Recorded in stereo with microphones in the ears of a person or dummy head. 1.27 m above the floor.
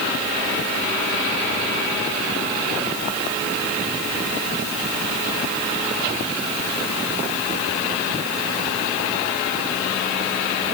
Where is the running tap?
I don't hear a running tap.